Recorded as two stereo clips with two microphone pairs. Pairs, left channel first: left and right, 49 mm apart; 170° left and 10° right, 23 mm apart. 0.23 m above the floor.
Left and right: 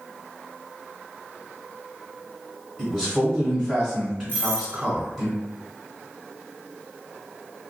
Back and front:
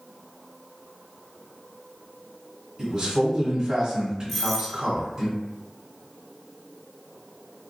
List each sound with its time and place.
2.8 s a man speaking: 20° right, 1.2 m
4.3 s a doorbell: 80° left, 1.4 m